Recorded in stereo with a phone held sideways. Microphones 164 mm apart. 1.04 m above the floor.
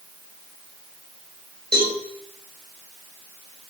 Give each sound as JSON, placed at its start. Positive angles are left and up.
{"t": 1.7, "sound": "a cowbell", "side_deg": -75, "distance_m": 4.0}